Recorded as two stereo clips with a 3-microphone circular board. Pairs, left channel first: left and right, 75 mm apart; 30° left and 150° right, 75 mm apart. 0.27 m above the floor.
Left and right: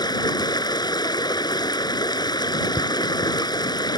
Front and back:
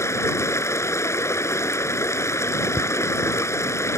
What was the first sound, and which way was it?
Running water, 80° left.